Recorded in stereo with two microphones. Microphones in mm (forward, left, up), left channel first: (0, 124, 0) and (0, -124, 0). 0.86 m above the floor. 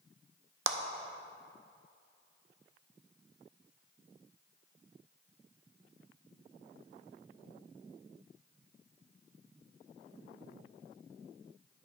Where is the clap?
60° right (ahead or behind), 0.6 m.